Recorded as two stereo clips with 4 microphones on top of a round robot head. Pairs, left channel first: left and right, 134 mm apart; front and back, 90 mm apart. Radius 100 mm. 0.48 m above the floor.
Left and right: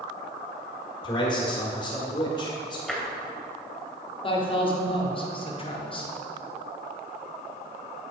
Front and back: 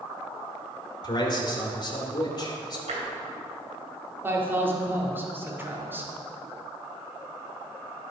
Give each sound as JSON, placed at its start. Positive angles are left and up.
{"t": 1.0, "sound": "a man speaking", "azimuth_deg": 35, "distance_m": 1.9}
{"t": 2.9, "sound": "tapping", "azimuth_deg": 180, "distance_m": 2.5}
{"t": 4.2, "sound": "a man speaking", "azimuth_deg": 120, "distance_m": 1.6}